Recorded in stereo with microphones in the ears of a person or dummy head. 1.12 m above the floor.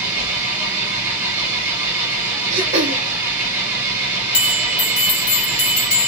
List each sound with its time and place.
0.0 s an engine running: 10° right (ahead or behind), 1.7 m
2.5 s throat clearing: 35° right (ahead or behind), 1.2 m
4.3 s a bell: 35° left (ahead or behind), 3 m